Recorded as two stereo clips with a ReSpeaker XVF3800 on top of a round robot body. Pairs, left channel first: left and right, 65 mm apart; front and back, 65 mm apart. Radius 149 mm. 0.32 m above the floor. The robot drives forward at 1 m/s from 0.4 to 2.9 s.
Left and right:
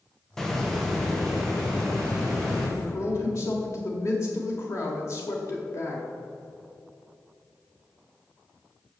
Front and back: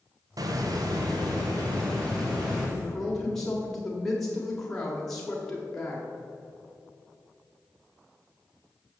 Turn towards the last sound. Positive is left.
turn(degrees=80)